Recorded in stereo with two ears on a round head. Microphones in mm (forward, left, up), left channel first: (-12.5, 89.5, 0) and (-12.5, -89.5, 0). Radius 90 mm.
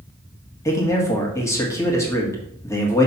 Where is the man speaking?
15° left (ahead or behind), 1.5 m.